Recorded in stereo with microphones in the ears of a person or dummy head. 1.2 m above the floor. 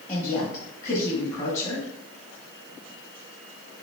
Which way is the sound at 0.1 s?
20° left (ahead or behind).